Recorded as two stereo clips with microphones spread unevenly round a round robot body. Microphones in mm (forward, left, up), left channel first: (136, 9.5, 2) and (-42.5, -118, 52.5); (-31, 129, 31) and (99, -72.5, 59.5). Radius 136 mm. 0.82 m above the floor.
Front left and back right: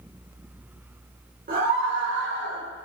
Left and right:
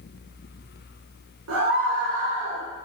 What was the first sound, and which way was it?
A scream, 95° right.